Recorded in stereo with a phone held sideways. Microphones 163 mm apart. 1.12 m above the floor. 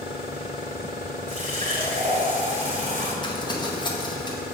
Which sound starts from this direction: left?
Crumpling, at 3.2 s.